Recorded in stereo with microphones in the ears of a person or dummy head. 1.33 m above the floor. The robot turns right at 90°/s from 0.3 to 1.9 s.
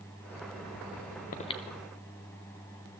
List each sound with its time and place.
1.3 s breathing: 45° left (ahead or behind), 0.7 m; by 1.6 s 20° left (ahead or behind), 0.7 m